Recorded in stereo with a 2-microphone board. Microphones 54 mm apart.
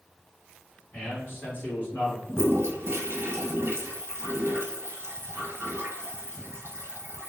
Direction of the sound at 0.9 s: 30° left (ahead or behind).